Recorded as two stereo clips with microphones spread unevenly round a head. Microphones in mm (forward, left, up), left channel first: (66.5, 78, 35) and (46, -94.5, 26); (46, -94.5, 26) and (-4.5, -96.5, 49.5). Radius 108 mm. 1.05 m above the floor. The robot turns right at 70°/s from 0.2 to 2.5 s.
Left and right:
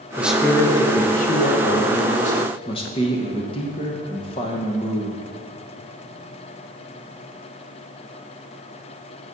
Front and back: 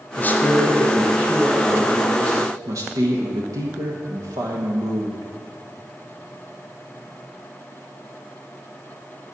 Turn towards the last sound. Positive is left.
turn(degrees=140)